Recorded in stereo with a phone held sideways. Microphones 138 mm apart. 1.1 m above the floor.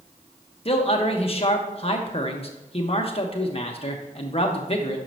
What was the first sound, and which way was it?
A man speaking, 45° left (ahead or behind).